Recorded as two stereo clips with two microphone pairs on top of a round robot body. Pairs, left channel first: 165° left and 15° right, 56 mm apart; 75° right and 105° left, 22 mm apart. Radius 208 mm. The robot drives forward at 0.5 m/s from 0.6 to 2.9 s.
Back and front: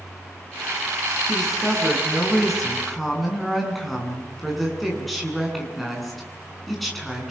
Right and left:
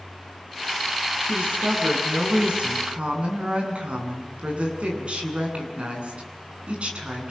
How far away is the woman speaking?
About 8 m.